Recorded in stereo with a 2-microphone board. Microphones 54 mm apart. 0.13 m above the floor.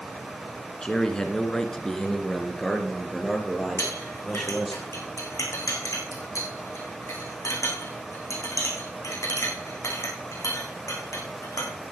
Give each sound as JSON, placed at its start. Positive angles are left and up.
{"t": 0.8, "sound": "a man speaking", "side_deg": 15, "distance_m": 1.4}
{"t": 3.8, "sound": "a clink", "side_deg": 70, "distance_m": 4.5}